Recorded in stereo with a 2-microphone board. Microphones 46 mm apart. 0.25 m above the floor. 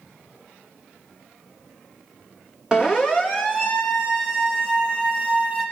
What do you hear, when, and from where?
2.7 s a siren: 15° right (ahead or behind), 3 m; by 5.6 s 30° right (ahead or behind), 6.5 m